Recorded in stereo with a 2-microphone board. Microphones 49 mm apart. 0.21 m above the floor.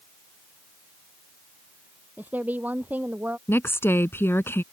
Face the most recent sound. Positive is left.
turn(degrees=50)  # may be behind; listen again after turning